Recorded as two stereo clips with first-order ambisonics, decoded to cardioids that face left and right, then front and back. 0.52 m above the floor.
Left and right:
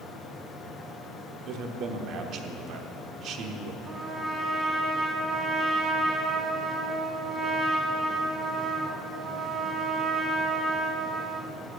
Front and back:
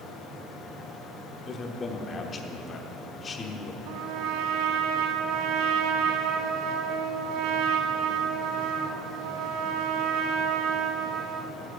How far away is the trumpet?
About 0.9 m.